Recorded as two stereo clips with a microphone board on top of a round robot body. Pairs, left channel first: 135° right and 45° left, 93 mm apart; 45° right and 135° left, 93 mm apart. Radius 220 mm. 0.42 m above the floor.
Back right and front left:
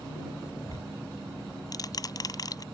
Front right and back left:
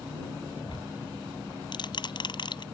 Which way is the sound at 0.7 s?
85° right.